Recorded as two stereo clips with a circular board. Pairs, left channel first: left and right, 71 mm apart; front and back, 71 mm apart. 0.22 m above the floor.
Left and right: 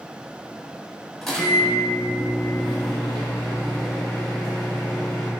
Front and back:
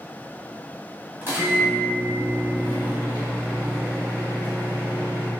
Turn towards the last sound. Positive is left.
turn(degrees=170)